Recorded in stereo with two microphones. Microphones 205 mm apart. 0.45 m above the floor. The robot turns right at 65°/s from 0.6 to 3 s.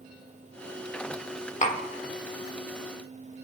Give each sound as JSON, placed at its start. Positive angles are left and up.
{"t": 1.6, "sound": "tapping", "side_deg": 40, "distance_m": 1.5}